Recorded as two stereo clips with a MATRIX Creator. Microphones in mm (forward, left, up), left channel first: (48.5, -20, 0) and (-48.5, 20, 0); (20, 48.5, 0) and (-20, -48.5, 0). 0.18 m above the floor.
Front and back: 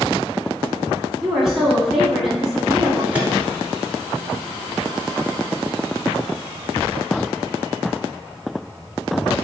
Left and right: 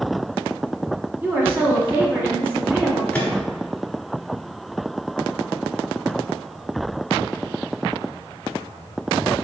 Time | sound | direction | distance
1.2 | a woman speaking | 125° right | 1.1 m
3.1 | a microwave | 115° left | 1.0 m